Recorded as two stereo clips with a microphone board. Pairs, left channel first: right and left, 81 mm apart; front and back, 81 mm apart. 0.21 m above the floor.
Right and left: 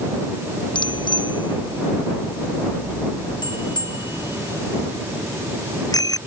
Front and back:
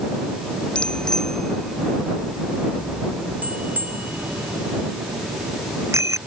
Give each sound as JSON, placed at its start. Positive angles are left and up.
{"t": 0.8, "sound": "a bicycle bell", "azimuth_deg": -80}